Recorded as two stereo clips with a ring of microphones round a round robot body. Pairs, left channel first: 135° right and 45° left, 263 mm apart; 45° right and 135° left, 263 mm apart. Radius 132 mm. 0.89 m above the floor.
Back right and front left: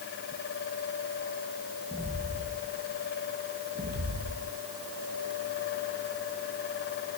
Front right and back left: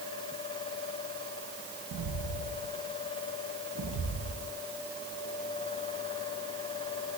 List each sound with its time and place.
1.9 s footsteps: 145° left, 2 m; by 4.5 s 90° left, 3 m